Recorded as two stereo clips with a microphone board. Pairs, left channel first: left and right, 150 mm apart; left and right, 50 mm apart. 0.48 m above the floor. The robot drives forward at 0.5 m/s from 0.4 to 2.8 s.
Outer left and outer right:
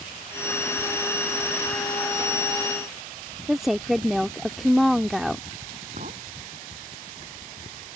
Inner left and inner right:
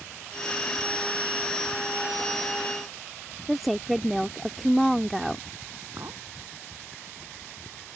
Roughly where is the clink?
Right.